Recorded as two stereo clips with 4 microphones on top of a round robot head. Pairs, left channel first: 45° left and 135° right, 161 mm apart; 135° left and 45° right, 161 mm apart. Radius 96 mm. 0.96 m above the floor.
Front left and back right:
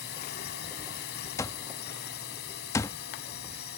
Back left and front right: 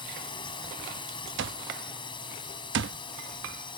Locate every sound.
0.0 s a drone: 75° left
1.4 s an alarm clock: 30° right